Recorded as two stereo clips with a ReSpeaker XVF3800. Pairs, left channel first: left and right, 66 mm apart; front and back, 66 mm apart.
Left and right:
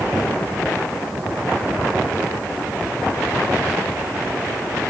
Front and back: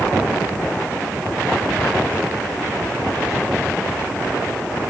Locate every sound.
Only background noise.